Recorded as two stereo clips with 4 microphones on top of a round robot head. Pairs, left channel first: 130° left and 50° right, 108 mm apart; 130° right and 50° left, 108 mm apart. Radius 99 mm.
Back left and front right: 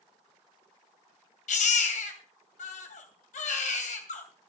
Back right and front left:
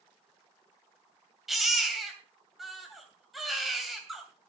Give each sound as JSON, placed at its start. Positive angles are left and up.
{"t": 1.5, "sound": "a baby crying", "azimuth_deg": 140, "distance_m": 2.5}